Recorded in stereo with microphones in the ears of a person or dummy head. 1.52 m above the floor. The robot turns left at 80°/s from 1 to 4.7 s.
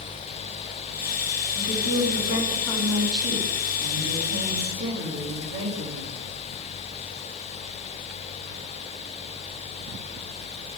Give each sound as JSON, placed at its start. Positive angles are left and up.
{"t": 1.6, "sound": "a woman speaking", "azimuth_deg": 105, "distance_m": 2.5}